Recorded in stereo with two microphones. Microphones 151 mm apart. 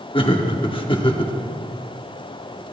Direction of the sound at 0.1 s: 35° left (ahead or behind).